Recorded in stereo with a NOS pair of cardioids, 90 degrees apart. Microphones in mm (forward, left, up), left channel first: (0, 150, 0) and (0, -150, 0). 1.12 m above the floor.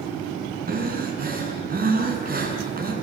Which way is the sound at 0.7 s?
30° right.